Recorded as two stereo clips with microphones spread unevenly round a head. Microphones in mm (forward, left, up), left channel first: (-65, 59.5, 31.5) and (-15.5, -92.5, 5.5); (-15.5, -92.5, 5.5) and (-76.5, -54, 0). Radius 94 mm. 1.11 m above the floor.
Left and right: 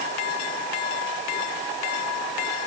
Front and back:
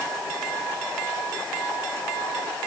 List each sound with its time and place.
Only background noise.